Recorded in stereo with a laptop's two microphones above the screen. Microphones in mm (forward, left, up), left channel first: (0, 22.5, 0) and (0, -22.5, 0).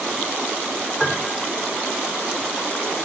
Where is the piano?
5° left (ahead or behind), 3 m.